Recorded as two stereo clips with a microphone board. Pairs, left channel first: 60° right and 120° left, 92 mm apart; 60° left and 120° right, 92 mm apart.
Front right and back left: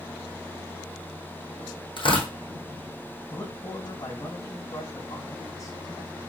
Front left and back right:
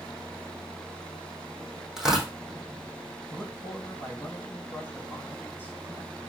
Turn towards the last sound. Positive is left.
turn(degrees=-5)